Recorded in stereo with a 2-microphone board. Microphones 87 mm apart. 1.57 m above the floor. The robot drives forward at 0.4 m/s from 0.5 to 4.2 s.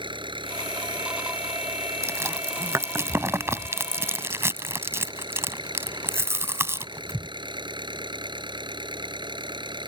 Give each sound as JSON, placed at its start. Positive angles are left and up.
{"t": 0.0, "sound": "an engine running", "side_deg": -70}
{"t": 2.0, "sound": "chewing", "side_deg": -35}